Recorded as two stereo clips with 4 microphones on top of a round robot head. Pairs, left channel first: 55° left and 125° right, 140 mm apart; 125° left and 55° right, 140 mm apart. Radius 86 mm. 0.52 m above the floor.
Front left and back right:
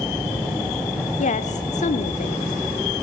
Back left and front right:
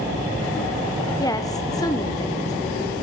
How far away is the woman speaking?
About 1.6 m.